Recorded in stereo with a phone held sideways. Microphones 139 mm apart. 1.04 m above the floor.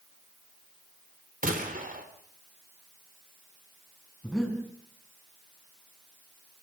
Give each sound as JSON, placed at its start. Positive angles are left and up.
{"t": 1.4, "sound": "a gunshot", "side_deg": -80, "distance_m": 3.0}
{"t": 4.2, "sound": "breathing", "side_deg": 5, "distance_m": 4.5}